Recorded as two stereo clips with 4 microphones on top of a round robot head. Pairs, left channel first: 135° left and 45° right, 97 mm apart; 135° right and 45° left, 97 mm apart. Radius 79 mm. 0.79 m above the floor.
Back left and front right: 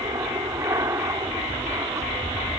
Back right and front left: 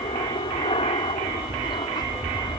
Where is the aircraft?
100° right.